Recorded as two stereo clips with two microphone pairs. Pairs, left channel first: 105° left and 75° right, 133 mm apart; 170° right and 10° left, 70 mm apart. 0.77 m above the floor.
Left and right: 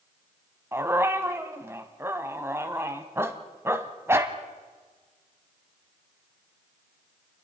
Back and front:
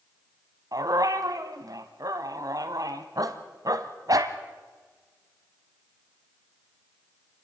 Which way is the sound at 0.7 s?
10° right.